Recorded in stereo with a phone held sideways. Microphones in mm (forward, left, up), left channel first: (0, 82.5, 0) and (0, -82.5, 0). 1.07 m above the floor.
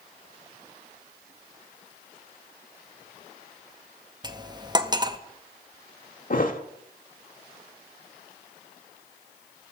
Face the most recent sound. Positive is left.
turn(degrees=55)  # may be behind; listen again after turning